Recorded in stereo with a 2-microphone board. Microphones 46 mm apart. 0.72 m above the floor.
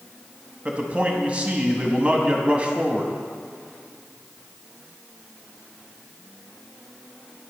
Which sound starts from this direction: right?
A man speaking, at 0.7 s.